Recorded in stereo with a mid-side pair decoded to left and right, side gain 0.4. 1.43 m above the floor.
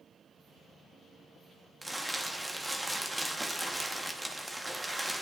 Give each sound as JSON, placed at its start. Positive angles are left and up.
{"t": 1.8, "sound": "crumpling", "azimuth_deg": -15, "distance_m": 1.0}